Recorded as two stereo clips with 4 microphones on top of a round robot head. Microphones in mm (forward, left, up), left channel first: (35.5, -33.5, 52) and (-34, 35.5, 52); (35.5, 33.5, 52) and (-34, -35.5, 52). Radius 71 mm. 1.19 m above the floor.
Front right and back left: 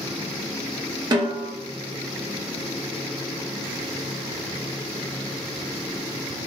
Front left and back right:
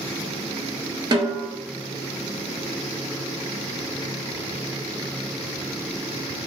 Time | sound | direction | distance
1.1 | a snare drum | straight behind | 1.1 m